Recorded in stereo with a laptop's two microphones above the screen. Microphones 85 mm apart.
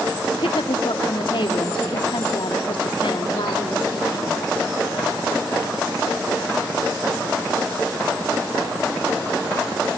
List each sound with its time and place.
0.3 s a woman speaking: 80° left, 1.8 m